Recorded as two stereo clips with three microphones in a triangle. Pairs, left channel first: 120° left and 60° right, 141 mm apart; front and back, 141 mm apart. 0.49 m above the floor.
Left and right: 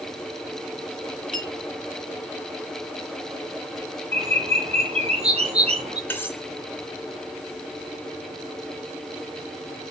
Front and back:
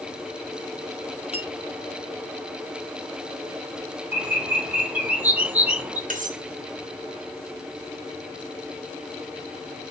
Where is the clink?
45° right, 4 m.